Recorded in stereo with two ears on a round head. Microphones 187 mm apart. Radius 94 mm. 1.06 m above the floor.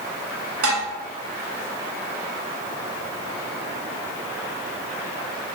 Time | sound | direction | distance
0.6 | dishes clattering | 70° right (ahead or behind) | 2.0 m